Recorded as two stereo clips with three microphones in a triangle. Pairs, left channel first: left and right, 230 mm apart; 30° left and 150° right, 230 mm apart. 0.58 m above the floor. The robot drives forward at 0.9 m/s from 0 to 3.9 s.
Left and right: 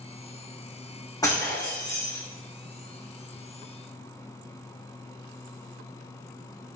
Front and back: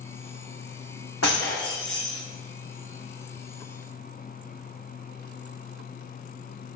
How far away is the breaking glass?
About 6.5 m.